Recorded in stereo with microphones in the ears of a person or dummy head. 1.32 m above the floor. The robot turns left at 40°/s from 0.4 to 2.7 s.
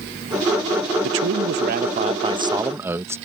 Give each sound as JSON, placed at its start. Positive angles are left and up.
{"t": 1.0, "sound": "a man speaking", "azimuth_deg": -100}